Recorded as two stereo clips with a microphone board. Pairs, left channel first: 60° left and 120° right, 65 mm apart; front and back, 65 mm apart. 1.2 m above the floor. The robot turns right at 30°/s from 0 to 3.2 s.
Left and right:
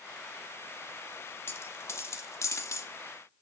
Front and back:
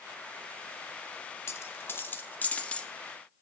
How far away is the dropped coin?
About 0.9 m.